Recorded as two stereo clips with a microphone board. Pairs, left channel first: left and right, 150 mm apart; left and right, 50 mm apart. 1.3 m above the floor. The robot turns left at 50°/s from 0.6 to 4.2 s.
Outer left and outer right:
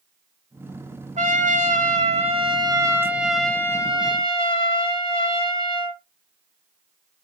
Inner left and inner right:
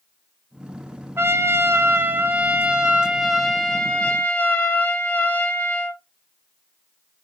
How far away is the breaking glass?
No breaking glass in this recording.